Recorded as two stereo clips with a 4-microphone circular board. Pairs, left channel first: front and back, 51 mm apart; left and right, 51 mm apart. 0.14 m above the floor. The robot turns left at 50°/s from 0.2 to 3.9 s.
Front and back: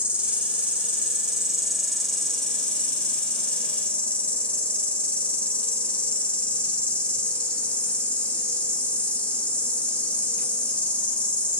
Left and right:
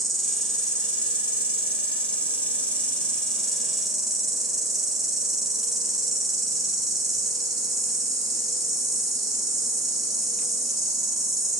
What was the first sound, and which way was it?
An insect, straight behind.